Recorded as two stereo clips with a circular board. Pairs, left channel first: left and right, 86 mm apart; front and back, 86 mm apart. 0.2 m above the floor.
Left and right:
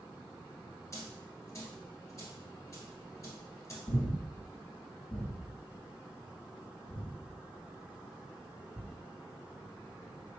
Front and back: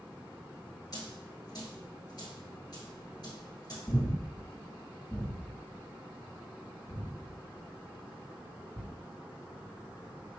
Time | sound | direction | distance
0.9 | a dropped coin | 40° left | 1.4 m
3.9 | breathing | 40° left | 1.7 m